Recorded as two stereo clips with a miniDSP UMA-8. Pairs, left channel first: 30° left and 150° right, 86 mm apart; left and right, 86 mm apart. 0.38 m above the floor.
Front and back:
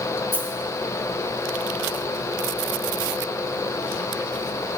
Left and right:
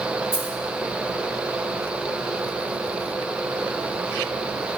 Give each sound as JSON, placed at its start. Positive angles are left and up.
{"t": 0.3, "sound": "a dropped coin", "azimuth_deg": -80, "distance_m": 0.6}